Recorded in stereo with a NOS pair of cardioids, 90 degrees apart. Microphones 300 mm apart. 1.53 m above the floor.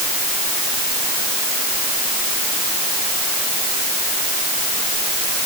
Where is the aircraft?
I don't hear an aircraft.